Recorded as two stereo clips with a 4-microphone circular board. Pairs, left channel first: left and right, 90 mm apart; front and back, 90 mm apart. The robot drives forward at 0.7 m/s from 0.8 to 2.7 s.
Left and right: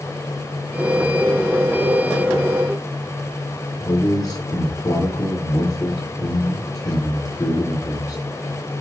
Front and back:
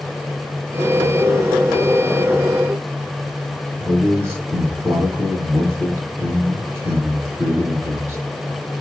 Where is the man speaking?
125° left, 2 m.